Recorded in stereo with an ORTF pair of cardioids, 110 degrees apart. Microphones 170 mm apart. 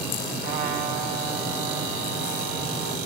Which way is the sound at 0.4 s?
70° right.